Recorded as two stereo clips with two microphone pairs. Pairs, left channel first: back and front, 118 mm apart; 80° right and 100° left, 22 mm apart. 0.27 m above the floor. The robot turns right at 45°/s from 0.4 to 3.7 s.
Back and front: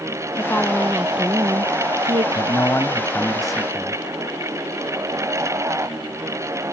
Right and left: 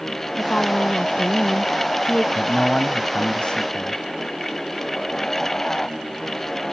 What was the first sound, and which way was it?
A woman speaking, 115° right.